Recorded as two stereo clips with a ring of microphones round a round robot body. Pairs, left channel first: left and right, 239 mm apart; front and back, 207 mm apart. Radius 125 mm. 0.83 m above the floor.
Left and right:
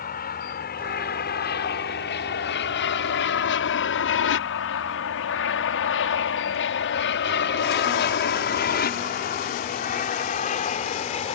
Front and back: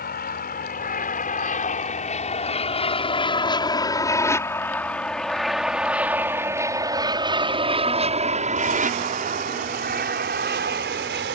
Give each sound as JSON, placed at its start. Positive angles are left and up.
{"t": 0.0, "sound": "an aircraft", "azimuth_deg": 40}